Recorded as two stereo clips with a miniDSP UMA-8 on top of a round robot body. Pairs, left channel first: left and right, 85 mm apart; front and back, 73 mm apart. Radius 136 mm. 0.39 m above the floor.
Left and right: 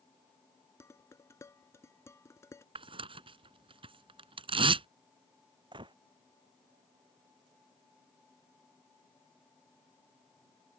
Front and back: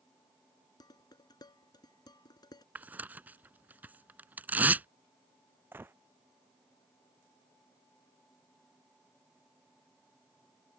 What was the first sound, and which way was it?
Dishes clattering, 30° left.